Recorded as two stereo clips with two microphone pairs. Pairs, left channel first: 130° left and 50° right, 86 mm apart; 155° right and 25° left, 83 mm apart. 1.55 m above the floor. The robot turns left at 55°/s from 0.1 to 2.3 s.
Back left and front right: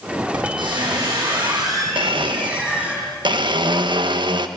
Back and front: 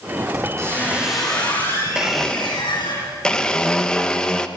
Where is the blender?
55° right, 1.6 m; by 4.5 s 75° right, 1.6 m.